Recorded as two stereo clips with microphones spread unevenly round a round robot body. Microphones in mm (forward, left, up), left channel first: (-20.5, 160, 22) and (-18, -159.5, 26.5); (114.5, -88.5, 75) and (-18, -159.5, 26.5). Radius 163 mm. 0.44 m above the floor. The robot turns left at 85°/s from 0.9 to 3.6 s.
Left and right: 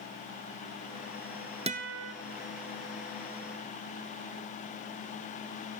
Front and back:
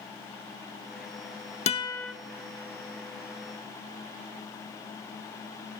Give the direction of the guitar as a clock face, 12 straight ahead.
1 o'clock.